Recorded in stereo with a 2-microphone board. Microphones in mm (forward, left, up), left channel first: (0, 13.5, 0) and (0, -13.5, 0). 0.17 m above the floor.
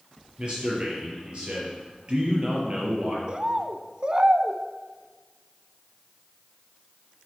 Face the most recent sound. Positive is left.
turn(degrees=-30)  # may be behind; listen again after turning